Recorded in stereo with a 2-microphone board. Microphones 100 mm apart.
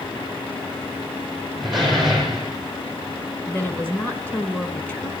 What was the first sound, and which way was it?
A door slam, centre (ahead or behind).